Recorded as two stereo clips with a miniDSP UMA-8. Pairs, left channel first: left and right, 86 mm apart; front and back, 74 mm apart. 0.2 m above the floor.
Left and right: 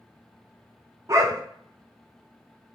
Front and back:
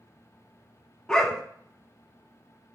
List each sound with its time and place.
1.1 s a dog barking: 75° right, 0.5 m